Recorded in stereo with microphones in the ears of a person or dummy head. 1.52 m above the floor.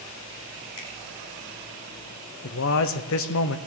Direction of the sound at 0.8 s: 80° left.